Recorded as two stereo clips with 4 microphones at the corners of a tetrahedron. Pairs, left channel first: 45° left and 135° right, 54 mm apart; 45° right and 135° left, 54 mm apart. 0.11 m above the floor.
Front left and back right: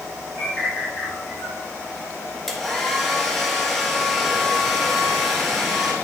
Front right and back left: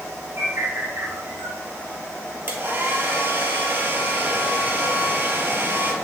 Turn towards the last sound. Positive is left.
turn(degrees=130)